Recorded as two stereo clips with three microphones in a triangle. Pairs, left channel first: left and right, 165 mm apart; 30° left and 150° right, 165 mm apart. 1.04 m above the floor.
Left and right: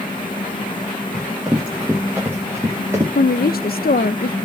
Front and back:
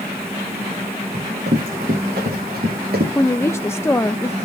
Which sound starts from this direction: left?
A woman speaking, at 3.1 s.